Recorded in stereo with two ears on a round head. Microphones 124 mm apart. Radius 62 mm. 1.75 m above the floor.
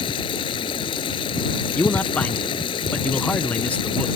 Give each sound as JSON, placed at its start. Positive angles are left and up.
{"t": 0.0, "sound": "running water", "side_deg": 35}
{"t": 1.8, "sound": "a man speaking", "side_deg": 10}